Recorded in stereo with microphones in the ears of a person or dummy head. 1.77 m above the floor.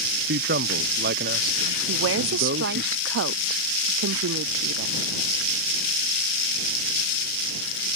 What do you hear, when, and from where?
0.3 s a man speaking: 60° right (ahead or behind)
1.9 s a woman speaking: 70° right (ahead or behind)